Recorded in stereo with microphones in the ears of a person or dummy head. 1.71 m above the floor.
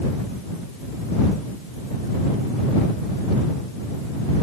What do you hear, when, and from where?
Only background noise.